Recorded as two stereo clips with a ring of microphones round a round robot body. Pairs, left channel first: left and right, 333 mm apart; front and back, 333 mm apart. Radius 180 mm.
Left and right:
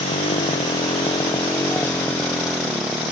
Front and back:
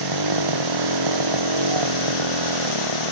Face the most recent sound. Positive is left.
turn(degrees=-175)